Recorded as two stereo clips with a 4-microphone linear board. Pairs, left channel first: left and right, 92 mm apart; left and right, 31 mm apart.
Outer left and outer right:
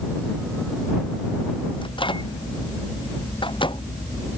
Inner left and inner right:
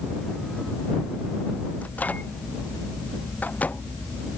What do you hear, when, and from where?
1.8 s a microwave: 65° left (ahead or behind)